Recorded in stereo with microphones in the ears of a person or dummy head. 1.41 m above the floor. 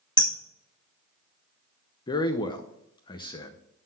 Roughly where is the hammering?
Left.